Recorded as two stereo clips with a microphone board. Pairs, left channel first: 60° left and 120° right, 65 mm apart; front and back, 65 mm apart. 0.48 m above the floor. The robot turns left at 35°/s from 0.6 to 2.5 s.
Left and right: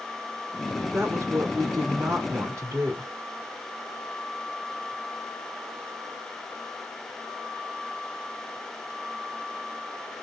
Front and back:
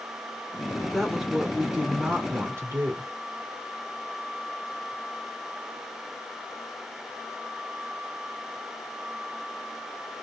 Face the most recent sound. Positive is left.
turn(degrees=-145)